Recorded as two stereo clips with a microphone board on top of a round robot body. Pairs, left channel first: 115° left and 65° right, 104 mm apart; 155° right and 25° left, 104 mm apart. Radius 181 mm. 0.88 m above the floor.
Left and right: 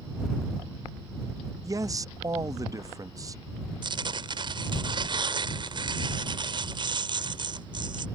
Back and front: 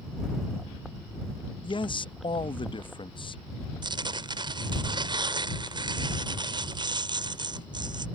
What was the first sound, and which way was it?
A man speaking, 125° right.